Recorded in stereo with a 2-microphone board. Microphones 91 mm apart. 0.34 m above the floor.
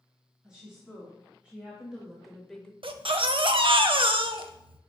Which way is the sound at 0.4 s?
10° right (ahead or behind).